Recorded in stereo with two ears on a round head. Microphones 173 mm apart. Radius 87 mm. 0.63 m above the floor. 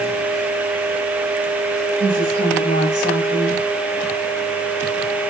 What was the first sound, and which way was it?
A woman speaking, 70° left (ahead or behind).